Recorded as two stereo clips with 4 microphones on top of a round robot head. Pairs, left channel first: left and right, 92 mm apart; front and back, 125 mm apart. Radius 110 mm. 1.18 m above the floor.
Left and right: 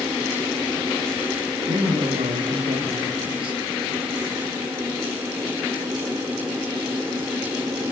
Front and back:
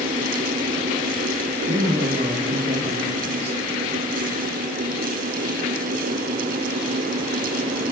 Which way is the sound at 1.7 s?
130° right.